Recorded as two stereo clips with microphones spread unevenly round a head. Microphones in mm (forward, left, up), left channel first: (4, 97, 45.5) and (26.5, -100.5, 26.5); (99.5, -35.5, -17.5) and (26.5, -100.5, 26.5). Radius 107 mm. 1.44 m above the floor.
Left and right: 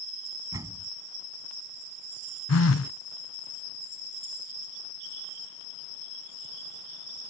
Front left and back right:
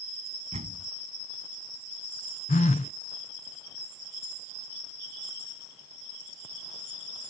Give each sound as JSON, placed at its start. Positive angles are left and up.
{"t": 0.5, "sound": "a door slam", "azimuth_deg": -160}
{"t": 2.5, "sound": "a phone buzzing", "azimuth_deg": 70}